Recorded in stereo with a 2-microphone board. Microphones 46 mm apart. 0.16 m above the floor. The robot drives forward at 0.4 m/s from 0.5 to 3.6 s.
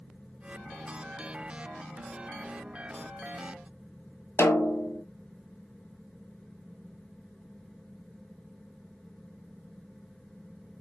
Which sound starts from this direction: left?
A snare drum, at 4.4 s.